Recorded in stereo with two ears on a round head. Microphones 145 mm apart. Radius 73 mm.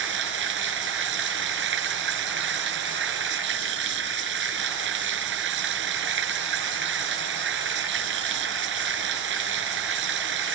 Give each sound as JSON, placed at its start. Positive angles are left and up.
{"t": 0.0, "sound": "running water", "side_deg": -85}